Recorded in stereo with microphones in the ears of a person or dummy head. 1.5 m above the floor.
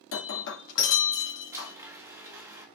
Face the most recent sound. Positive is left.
turn(degrees=-20)  # may be behind; listen again after turning